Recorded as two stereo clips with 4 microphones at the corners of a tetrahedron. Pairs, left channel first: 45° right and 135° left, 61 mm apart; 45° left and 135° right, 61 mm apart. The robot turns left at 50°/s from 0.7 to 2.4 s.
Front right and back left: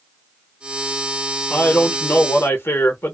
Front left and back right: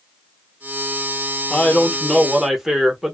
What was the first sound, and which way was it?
A man speaking, 10° right.